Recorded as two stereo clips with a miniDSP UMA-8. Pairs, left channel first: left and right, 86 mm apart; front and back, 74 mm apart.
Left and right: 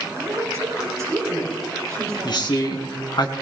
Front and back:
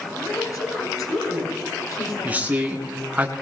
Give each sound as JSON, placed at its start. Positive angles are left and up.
{"t": 0.2, "sound": "a woman speaking", "azimuth_deg": -40, "distance_m": 6.0}
{"t": 2.2, "sound": "a man speaking", "azimuth_deg": 115, "distance_m": 2.0}